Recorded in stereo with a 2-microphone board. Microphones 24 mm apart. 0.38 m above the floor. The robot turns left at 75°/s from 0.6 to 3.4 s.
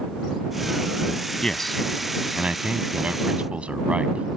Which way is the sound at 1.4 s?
30° left (ahead or behind).